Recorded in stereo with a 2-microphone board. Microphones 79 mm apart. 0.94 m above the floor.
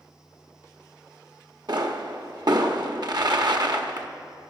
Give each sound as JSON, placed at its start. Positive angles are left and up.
{"t": 1.7, "sound": "a pop", "side_deg": -65, "distance_m": 1.1}